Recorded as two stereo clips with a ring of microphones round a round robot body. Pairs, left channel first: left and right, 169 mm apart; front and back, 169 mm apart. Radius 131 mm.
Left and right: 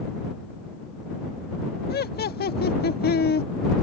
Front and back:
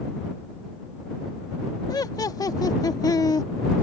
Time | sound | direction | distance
1.9 | laughter | 70° left | ?